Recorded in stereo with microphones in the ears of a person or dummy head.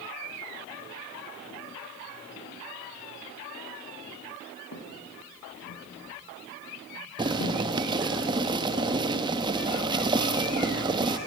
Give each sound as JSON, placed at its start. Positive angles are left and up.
{"t": 4.7, "sound": "footsteps", "side_deg": 80, "distance_m": 6.0}
{"t": 7.2, "sound": "boiling", "side_deg": -25, "distance_m": 1.1}